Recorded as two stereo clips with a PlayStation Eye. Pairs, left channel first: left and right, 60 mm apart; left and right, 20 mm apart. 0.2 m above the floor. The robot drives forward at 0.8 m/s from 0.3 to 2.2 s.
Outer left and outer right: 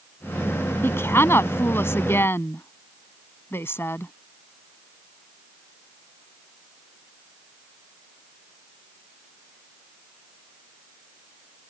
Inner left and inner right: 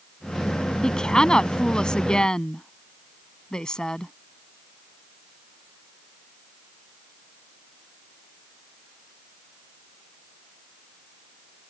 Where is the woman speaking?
40° left (ahead or behind).